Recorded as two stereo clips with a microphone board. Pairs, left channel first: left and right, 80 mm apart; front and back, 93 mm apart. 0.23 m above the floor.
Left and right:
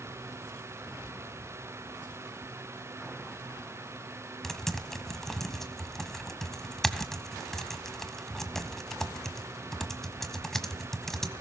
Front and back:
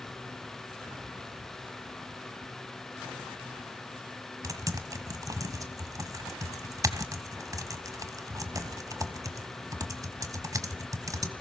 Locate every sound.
4.4 s typing on a keyboard: 175° left, 1.4 m